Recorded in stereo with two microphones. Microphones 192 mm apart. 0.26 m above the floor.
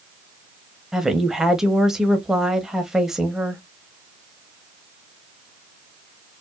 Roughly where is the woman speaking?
Centre.